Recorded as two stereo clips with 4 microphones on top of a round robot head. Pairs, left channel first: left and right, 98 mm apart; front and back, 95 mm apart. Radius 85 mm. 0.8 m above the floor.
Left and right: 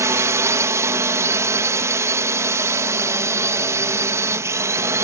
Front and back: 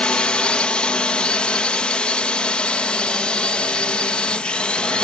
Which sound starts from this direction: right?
A drone, at 0.0 s.